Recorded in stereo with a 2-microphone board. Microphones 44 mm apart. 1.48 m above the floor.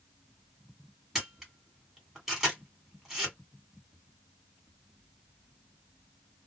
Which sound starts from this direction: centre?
A camera shutter, at 1.1 s.